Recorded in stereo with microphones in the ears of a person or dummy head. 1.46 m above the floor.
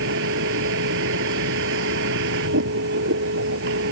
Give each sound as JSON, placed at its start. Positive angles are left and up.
{"t": 0.0, "sound": "a vehicle", "side_deg": -70}